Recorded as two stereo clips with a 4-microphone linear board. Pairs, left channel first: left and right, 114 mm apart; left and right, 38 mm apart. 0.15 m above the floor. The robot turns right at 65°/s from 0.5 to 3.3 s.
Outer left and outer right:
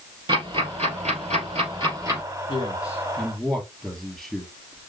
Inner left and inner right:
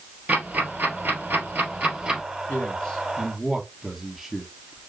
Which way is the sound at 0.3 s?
45° right (ahead or behind).